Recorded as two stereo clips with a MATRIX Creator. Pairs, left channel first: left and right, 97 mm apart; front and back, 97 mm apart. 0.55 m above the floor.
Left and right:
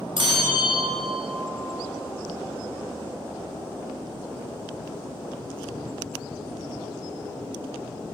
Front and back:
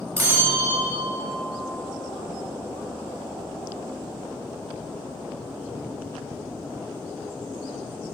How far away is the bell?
About 2.5 m.